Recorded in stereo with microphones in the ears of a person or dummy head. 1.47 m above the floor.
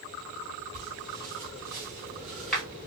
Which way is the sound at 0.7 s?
25° right (ahead or behind).